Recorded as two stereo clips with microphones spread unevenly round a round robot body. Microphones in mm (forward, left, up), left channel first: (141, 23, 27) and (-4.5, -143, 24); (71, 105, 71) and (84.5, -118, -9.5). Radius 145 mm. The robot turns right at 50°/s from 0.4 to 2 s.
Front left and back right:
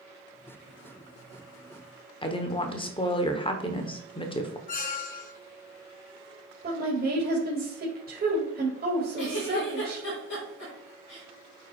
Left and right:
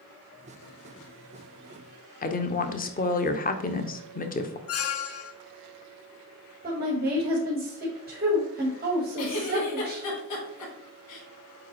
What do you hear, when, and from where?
2.2 s a woman speaking: 45° left, 0.9 m
4.7 s a squeak: 85° left, 0.9 m
6.6 s a woman speaking: 95° right, 1.9 m
9.2 s a giggle: 100° left, 4 m